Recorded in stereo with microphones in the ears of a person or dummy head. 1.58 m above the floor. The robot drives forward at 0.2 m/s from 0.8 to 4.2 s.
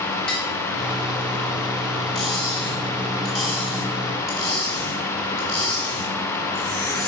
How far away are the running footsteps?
No running footsteps in this recording.